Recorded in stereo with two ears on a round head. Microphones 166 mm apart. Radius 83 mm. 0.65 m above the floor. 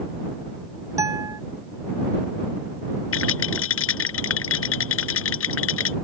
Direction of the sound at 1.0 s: 15° right (ahead or behind).